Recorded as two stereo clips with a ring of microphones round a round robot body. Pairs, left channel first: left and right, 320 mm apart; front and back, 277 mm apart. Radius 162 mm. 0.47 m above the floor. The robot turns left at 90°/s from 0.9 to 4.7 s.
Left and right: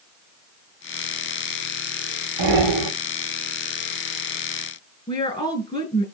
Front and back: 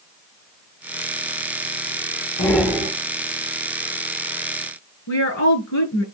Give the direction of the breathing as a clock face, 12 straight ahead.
2 o'clock.